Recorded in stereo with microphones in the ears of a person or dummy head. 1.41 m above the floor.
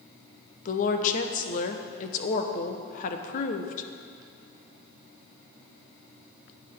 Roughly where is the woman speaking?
Left.